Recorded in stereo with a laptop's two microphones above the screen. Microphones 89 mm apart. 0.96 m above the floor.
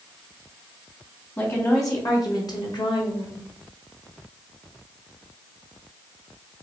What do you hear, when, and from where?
1.4 s a woman speaking: 30° left (ahead or behind), 1.5 m; by 3.5 s 60° left (ahead or behind), 1.2 m